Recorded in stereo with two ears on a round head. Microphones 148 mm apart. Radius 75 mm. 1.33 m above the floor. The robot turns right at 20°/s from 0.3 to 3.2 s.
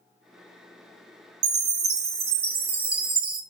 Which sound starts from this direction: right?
A chime, at 1.4 s.